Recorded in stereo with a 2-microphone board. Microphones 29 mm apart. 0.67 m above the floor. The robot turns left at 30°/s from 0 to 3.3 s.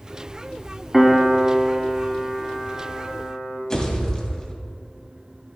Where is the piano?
165° right, 1.5 m; by 3.6 s 120° left, 1.5 m.